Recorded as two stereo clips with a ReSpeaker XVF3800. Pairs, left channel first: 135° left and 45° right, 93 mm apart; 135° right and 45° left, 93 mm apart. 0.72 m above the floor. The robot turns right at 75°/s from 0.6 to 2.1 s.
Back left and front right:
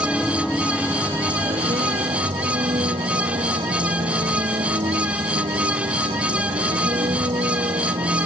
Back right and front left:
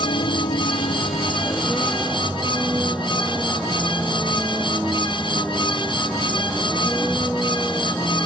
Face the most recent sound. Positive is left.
turn(degrees=-45)